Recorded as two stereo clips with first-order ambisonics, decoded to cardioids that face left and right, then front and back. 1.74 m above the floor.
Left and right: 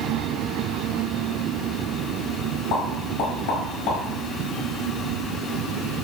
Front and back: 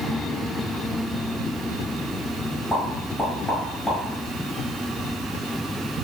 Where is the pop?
90° left, 1.5 m.